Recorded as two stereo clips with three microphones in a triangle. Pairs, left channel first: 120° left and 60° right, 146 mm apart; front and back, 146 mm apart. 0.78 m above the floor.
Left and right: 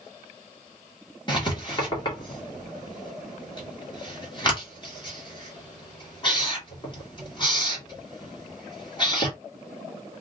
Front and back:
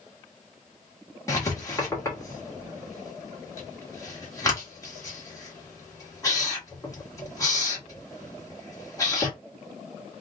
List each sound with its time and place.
1.3 s writing: 65° left, 1.6 m